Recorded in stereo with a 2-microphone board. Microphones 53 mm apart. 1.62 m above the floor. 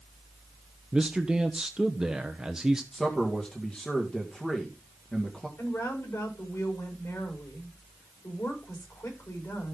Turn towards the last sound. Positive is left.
turn(degrees=65)  # may be behind; listen again after turning